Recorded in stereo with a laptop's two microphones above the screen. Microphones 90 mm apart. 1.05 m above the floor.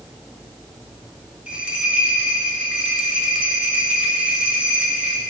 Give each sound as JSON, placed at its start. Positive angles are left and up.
{"t": 1.5, "sound": "a bell", "side_deg": -10, "distance_m": 2.5}